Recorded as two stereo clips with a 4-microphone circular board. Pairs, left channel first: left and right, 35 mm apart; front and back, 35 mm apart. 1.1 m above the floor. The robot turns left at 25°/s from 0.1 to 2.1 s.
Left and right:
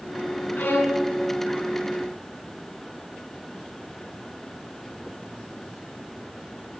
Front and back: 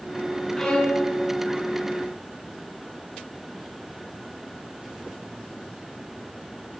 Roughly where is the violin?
Left.